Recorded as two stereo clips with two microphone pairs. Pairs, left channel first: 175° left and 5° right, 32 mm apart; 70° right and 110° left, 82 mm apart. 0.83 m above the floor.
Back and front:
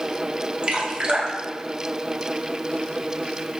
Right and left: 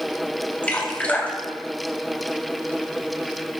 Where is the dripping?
15° right, 1.2 m.